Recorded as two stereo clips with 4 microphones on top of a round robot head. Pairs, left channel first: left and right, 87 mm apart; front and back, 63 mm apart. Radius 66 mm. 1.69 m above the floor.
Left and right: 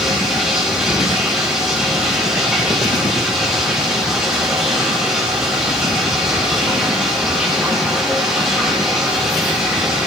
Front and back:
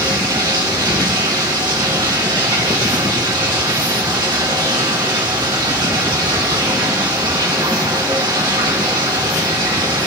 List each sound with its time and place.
0.0 s running water: 175° right, 2.5 m